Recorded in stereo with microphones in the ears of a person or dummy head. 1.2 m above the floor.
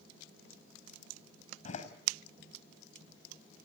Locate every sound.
1.6 s a door slam: 45° left (ahead or behind), 4.5 m